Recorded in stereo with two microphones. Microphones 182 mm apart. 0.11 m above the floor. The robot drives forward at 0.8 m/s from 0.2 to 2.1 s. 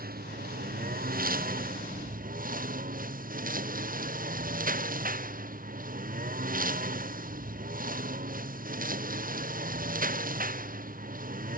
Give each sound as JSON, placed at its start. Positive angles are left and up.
{"t": 0.0, "sound": "a lawn mower", "side_deg": -55}